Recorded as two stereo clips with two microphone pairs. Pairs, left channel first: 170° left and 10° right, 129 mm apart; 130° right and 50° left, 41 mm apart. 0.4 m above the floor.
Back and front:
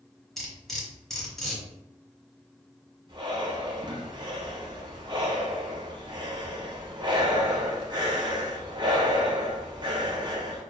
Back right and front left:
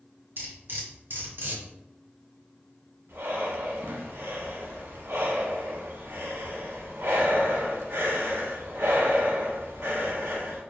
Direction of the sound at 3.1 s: 40° left.